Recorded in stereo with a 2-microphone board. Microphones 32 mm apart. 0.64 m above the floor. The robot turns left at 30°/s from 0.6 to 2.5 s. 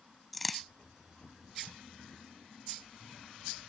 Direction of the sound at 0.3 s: Centre (ahead or behind).